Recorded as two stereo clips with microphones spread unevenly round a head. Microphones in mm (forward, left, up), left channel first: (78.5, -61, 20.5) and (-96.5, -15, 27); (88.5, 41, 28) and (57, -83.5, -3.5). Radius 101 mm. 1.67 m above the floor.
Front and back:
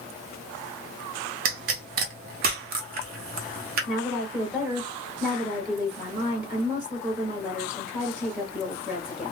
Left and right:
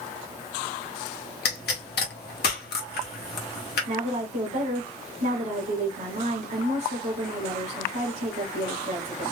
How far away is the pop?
About 0.7 m.